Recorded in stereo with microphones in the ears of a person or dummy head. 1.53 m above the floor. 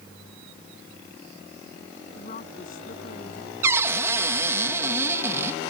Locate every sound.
2.1 s a woman speaking: 45° left (ahead or behind); by 3.5 s 50° left (ahead or behind)
3.6 s a cupboard door: 15° right (ahead or behind)